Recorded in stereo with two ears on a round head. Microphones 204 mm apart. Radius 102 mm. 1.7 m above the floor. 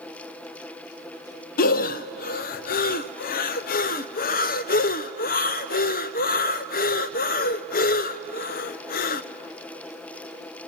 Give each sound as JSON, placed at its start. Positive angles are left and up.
{"t": 1.6, "sound": "breathing", "side_deg": 40, "distance_m": 0.6}